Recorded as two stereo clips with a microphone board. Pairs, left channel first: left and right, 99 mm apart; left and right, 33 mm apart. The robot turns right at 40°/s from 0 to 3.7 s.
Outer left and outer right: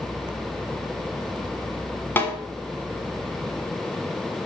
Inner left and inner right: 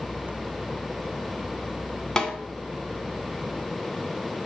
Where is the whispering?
No whispering in this recording.